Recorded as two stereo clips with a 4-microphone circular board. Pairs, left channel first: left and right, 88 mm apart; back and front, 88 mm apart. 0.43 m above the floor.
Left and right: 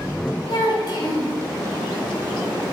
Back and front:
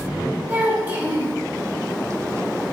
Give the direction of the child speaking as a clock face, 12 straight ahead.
10 o'clock.